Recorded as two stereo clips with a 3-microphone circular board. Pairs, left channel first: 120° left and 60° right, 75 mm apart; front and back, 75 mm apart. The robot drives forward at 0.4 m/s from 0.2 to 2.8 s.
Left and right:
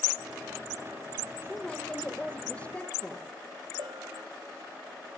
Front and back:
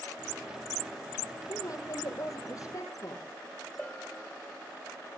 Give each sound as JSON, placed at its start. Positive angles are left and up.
{"t": 1.5, "sound": "a woman speaking", "azimuth_deg": 40, "distance_m": 9.0}
{"t": 3.8, "sound": "a bell", "azimuth_deg": -85, "distance_m": 1.9}